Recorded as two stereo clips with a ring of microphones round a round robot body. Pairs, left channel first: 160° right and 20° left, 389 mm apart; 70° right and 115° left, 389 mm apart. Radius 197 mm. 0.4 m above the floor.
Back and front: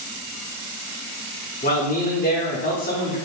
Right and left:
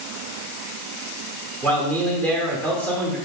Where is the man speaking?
145° right, 0.9 m.